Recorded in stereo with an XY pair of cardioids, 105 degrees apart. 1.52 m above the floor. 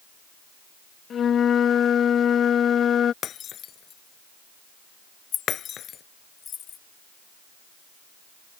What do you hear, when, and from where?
1.1 s a flute: 55° left
3.2 s breaking glass: 60° left
5.3 s keys jangling: 55° left